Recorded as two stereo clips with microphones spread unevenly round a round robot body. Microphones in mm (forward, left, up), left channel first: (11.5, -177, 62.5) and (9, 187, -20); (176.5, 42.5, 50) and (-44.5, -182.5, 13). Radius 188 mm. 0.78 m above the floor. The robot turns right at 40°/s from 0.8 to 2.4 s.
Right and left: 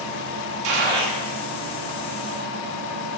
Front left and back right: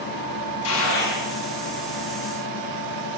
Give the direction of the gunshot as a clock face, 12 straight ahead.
9 o'clock.